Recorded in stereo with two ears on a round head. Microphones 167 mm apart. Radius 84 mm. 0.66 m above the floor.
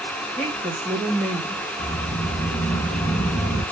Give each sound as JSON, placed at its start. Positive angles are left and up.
{"t": 0.4, "sound": "a woman speaking", "side_deg": 5, "distance_m": 1.1}
{"t": 1.8, "sound": "a sliding door", "side_deg": 70, "distance_m": 1.0}